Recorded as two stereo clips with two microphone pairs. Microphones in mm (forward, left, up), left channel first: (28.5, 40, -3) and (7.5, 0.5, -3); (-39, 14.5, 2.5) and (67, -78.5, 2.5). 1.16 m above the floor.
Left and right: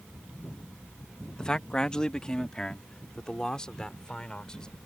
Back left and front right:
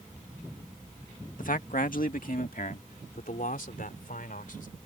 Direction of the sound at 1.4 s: 130° left.